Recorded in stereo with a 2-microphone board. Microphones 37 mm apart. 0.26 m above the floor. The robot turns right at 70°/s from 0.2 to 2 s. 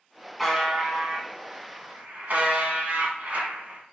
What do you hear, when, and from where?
0.4 s a buzzer: 175° left, 1.2 m; by 3.8 s 75° right, 1.2 m